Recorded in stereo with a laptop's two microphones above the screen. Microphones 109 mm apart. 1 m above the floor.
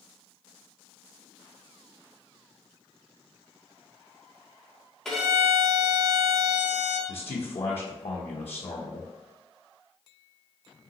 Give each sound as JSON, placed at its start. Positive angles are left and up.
{"t": 5.0, "sound": "a violin", "side_deg": 5, "distance_m": 1.5}
{"t": 7.1, "sound": "a man speaking", "side_deg": 65, "distance_m": 0.8}